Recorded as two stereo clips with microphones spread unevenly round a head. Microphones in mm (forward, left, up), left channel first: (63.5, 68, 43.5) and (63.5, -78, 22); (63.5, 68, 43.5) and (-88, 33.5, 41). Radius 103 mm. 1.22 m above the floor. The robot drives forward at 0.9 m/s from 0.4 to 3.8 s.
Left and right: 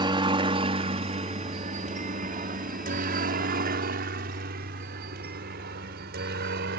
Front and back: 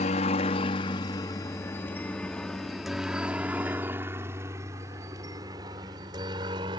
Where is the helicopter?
35° right; by 6.8 s 100° right.